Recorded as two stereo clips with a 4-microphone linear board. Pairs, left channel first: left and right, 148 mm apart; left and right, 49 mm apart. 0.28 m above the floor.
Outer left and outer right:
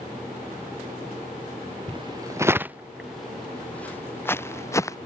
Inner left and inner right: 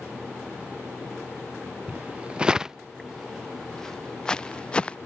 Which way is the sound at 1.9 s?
35° right (ahead or behind).